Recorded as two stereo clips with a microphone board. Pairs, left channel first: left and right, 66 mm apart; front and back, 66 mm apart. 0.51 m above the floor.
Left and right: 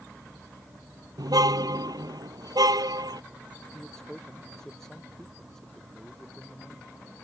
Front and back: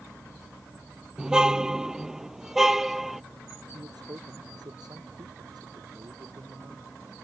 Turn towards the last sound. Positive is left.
turn(degrees=175)